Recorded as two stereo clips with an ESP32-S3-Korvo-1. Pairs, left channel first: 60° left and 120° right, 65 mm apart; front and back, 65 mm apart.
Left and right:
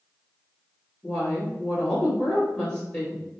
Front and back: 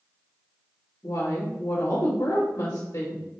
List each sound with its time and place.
1.0 s a woman speaking: 15° right, 1.7 m